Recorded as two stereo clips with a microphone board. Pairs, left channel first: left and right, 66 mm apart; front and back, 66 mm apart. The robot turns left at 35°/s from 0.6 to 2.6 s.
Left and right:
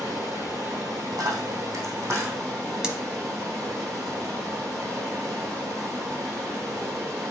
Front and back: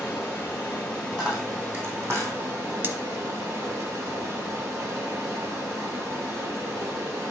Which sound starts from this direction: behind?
Cutlery clinking, at 2.8 s.